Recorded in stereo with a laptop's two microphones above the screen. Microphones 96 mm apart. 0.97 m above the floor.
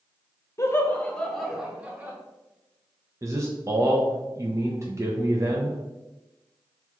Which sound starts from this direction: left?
Laughter, at 0.6 s.